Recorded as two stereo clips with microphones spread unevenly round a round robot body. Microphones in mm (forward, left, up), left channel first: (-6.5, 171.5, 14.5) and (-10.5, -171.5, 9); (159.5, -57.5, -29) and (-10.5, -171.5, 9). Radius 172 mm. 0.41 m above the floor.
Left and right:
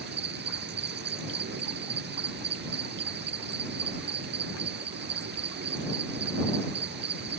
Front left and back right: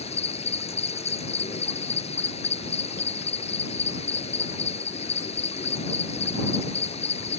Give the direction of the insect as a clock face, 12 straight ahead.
1 o'clock.